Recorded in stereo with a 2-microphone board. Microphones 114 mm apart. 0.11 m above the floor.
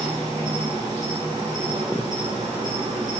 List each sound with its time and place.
0.0 s an insect: 30° right (ahead or behind), 4 m